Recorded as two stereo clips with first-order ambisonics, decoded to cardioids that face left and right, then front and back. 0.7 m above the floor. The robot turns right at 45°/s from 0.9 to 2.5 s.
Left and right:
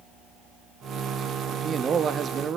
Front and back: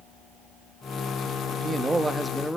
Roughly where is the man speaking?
Behind right.